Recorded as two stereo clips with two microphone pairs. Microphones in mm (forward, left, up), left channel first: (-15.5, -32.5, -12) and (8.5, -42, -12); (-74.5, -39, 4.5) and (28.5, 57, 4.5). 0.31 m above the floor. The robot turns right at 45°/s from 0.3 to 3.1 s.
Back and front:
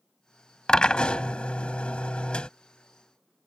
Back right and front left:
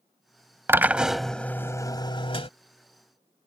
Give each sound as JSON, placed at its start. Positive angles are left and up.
{"t": 0.7, "sound": "a drill", "azimuth_deg": 110}